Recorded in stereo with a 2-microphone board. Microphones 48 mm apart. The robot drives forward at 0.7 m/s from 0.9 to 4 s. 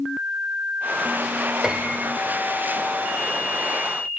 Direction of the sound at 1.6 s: 15° right (ahead or behind).